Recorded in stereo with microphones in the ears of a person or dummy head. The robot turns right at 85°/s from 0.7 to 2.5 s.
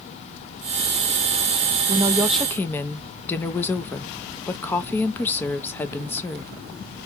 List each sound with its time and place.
1.9 s a woman speaking: 40° right, 0.8 m; by 6.5 s 10° left, 0.8 m